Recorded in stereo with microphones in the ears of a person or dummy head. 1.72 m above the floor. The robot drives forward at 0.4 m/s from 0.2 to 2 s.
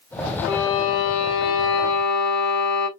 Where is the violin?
65° left (ahead or behind), 0.7 m; by 2.9 s 60° left (ahead or behind), 0.7 m.